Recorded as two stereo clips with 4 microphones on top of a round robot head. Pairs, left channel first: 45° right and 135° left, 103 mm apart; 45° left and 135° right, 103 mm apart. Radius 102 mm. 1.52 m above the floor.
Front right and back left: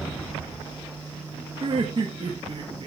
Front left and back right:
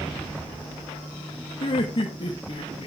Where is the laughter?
85° left, 1.9 m.